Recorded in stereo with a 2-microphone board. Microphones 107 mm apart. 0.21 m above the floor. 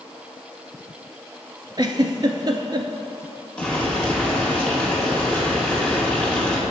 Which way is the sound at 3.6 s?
10° left (ahead or behind).